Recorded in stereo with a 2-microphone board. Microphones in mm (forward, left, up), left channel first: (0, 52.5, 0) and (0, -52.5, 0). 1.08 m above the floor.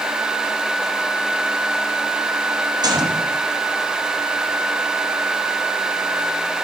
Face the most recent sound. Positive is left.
turn(degrees=-40)  # may be behind; listen again after turning